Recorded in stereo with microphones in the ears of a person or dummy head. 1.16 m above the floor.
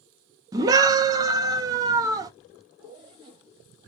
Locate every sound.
0.5 s a scream: 20° right (ahead or behind), 0.7 m
2.8 s a zipper: 25° right (ahead or behind), 0.6 m